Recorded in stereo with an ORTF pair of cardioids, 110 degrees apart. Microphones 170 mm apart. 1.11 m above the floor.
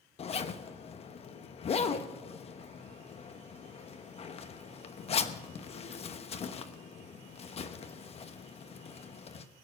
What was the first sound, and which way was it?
A zipper, 35° left.